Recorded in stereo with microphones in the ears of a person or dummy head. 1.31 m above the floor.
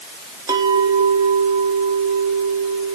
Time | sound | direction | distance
0.5 | a clink | 20° right (ahead or behind) | 2.0 m